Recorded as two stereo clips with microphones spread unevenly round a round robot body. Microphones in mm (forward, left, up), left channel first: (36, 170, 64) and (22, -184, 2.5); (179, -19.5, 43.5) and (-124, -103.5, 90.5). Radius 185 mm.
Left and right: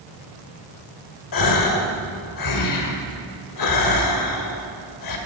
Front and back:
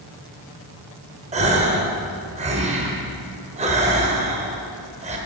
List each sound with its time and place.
1.3 s a gasp: 125° left, 1.5 m